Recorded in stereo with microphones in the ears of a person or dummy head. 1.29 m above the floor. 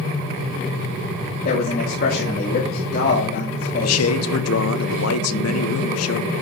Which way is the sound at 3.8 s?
75° left (ahead or behind).